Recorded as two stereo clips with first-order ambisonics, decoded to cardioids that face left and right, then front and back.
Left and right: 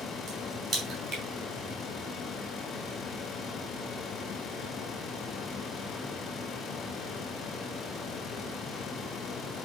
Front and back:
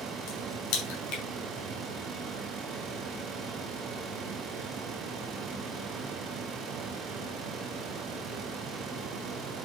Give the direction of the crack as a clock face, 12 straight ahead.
12 o'clock.